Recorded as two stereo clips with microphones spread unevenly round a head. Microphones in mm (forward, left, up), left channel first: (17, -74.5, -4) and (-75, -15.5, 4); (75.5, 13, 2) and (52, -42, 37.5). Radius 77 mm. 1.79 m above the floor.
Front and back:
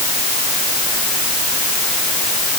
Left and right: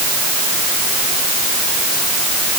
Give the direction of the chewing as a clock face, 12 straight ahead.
I don't hear chewing.